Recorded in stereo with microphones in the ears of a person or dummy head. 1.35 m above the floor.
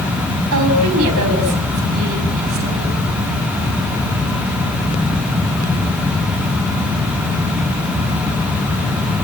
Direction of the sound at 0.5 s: 70° right (ahead or behind).